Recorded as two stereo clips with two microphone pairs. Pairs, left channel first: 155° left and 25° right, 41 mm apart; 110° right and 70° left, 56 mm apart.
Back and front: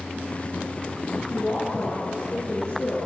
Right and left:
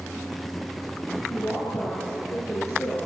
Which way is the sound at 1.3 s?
135° right.